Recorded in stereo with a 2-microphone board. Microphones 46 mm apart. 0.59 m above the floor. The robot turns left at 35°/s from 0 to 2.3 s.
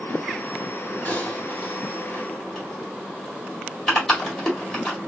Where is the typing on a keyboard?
35° left (ahead or behind), 1.7 m; by 5.0 s 10° left (ahead or behind), 1.7 m.